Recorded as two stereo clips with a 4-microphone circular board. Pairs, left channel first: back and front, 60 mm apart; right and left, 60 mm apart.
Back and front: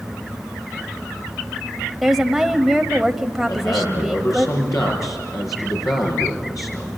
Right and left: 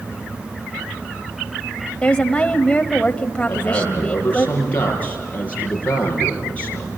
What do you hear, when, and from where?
2.0 s a woman speaking: 80° right, 0.9 m
3.5 s a man speaking: 155° right, 7 m